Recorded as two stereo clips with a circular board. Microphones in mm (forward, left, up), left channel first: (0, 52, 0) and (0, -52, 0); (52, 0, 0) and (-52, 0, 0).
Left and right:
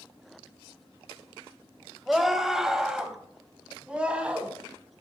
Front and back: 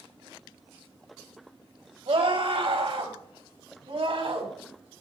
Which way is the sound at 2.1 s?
Straight behind.